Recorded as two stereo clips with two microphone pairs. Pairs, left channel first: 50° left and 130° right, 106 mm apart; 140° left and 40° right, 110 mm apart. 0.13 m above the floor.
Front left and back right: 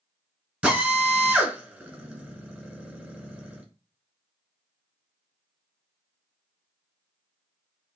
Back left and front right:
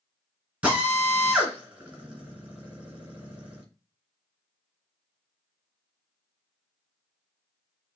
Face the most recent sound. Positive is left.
turn(degrees=-95)